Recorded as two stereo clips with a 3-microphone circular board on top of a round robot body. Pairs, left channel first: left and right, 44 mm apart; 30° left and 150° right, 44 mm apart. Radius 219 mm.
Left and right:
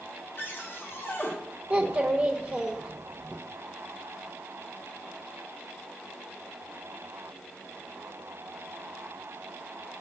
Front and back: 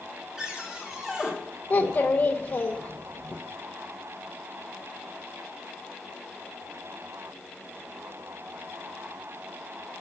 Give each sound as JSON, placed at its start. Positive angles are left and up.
{"t": 0.4, "sound": "a cupboard door", "azimuth_deg": 135, "distance_m": 1.5}
{"t": 1.7, "sound": "a child speaking", "azimuth_deg": -25, "distance_m": 0.7}